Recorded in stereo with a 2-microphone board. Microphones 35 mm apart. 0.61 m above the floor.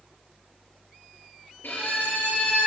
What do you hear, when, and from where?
1.6 s a violin: 80° left, 7 m